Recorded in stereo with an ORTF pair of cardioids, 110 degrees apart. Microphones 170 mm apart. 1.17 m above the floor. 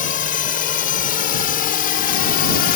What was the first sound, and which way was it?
A drone, 55° left.